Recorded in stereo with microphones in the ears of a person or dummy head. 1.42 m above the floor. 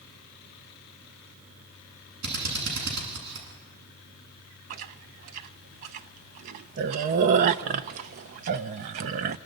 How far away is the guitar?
No guitar in this recording.